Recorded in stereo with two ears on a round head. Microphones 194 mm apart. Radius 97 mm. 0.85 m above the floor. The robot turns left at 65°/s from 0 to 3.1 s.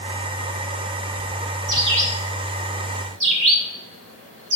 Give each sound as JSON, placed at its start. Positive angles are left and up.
{"t": 1.7, "sound": "a bird", "side_deg": -20, "distance_m": 1.5}